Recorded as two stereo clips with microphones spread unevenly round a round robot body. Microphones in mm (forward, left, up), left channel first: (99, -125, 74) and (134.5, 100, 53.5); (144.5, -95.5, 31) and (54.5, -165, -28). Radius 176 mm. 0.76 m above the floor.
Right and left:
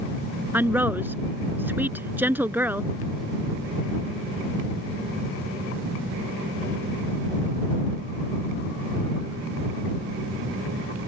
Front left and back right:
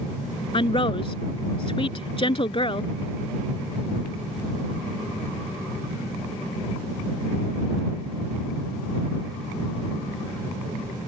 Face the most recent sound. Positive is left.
turn(degrees=0)